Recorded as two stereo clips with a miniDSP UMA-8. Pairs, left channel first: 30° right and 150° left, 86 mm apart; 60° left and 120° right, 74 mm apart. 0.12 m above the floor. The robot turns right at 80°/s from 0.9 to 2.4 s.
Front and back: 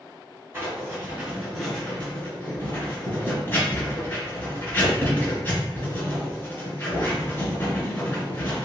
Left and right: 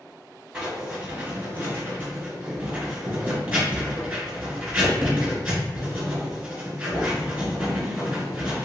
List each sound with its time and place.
0.5 s writing: 175° right, 1.8 m; by 8.7 s 55° right, 1.8 m